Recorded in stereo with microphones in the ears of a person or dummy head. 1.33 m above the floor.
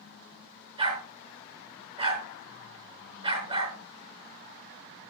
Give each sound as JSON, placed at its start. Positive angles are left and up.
{"t": 0.8, "sound": "a dog barking", "side_deg": -25, "distance_m": 5.0}